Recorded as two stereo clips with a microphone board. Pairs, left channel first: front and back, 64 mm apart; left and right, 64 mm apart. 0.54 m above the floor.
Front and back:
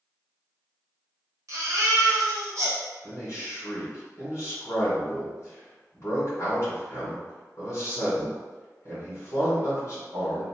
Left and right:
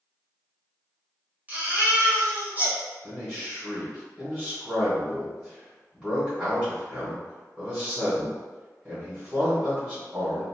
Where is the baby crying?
155° right, 1.1 m.